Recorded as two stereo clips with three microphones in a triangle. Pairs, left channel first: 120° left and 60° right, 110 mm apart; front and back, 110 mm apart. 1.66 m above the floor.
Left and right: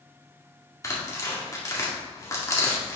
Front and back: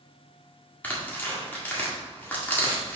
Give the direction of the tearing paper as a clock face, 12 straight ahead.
10 o'clock.